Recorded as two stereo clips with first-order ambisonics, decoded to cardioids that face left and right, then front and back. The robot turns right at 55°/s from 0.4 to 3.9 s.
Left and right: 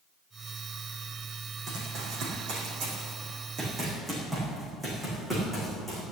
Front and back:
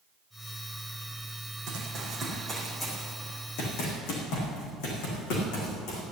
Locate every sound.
1.7 s running footsteps: 145° right, 5 m; by 6.0 s 5° right, 6.5 m